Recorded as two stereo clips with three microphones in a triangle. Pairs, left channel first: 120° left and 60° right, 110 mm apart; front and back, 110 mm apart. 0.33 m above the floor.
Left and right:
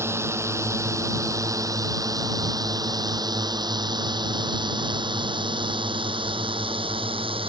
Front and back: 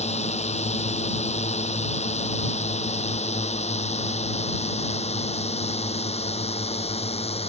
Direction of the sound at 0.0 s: 5° left.